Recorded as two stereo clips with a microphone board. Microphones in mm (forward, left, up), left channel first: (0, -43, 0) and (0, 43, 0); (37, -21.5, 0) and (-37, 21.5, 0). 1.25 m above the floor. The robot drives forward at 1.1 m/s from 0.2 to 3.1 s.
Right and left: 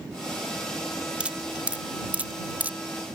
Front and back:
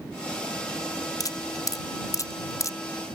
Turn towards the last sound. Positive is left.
turn(degrees=25)